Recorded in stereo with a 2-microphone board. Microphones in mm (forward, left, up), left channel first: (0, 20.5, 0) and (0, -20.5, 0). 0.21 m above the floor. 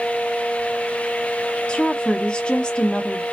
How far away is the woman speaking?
About 1.2 m.